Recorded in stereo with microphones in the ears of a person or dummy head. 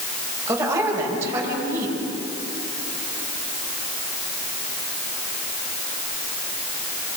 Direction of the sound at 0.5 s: 10° right (ahead or behind).